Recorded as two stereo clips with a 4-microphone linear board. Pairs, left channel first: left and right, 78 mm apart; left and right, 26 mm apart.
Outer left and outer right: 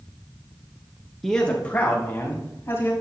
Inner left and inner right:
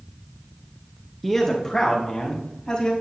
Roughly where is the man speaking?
Centre.